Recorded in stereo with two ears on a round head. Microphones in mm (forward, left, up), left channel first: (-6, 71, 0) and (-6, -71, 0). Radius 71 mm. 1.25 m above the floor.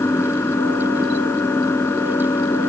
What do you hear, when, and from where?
0.0 s an engine running: 15° left (ahead or behind)